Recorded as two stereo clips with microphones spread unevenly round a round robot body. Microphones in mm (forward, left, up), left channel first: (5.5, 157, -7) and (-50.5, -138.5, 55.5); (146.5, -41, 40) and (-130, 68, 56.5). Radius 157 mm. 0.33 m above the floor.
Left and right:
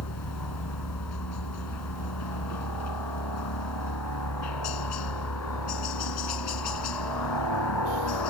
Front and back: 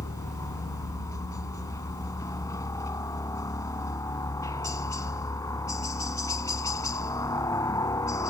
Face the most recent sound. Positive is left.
turn(degrees=55)